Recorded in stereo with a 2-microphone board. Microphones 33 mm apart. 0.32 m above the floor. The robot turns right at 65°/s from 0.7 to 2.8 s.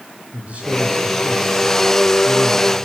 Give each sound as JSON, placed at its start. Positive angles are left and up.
{"t": 0.3, "sound": "a man speaking", "azimuth_deg": -40, "distance_m": 7.5}